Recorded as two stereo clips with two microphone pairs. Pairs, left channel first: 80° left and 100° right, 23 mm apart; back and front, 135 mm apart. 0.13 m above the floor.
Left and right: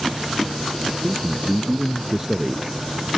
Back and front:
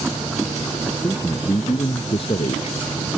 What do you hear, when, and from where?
1.0 s a man speaking: 125° right; by 2.9 s straight behind